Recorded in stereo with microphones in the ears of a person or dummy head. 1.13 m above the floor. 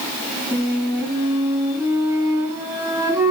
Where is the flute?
20° right (ahead or behind), 7 m.